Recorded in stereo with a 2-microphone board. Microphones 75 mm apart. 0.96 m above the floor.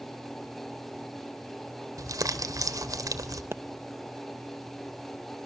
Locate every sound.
2.0 s crumpling: 60° right (ahead or behind), 2.5 m
3.5 s a pop: 40° right (ahead or behind), 0.8 m